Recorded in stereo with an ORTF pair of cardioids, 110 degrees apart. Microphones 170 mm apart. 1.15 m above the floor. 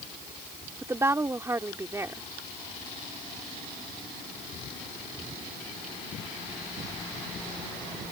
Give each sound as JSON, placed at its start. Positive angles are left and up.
{"t": 0.8, "sound": "a woman speaking", "azimuth_deg": -15}